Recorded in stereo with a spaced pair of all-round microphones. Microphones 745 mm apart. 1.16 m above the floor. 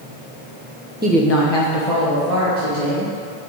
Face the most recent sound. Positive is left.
turn(degrees=50)  # may be behind; listen again after turning